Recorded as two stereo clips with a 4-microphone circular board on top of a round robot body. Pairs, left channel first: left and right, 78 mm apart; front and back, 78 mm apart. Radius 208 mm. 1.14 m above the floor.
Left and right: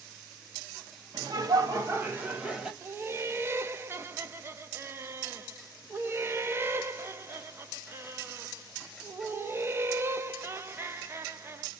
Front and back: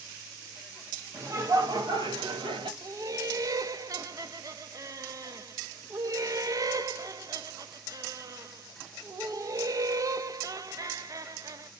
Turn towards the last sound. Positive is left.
turn(degrees=-145)